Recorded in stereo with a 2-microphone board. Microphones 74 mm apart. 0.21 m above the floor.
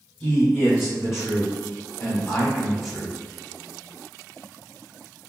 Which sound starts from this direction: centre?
A man speaking, at 0.2 s.